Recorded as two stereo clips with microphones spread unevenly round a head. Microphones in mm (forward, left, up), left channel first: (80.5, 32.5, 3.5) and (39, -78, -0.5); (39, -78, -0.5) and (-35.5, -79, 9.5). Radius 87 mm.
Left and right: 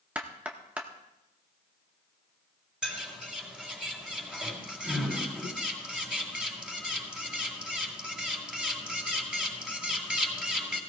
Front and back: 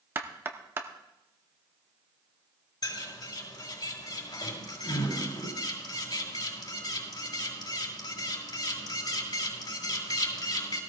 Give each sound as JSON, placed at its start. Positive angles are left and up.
{"t": 0.1, "sound": "knocking", "azimuth_deg": 175, "distance_m": 0.7}
{"t": 2.8, "sound": "a bird", "azimuth_deg": -30, "distance_m": 4.5}